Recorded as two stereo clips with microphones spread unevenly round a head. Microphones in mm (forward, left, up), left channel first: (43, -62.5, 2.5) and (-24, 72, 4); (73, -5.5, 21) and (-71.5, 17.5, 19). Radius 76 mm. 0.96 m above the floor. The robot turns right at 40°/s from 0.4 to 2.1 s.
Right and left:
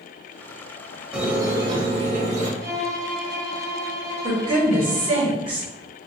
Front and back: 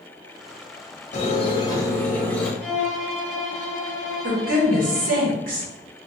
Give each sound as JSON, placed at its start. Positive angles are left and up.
{"t": 1.1, "sound": "a squeak", "azimuth_deg": 35, "distance_m": 1.0}
{"t": 2.6, "sound": "a violin", "azimuth_deg": 90, "distance_m": 1.3}
{"t": 4.2, "sound": "a woman speaking", "azimuth_deg": 170, "distance_m": 1.6}